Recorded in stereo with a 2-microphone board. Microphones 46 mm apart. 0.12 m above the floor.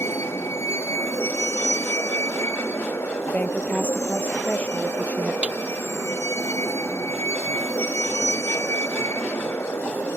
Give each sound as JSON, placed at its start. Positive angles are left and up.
{"t": 0.0, "sound": "a vehicle", "side_deg": 75}
{"t": 3.3, "sound": "a woman speaking", "side_deg": 40}
{"t": 5.4, "sound": "a snare drum", "side_deg": -30}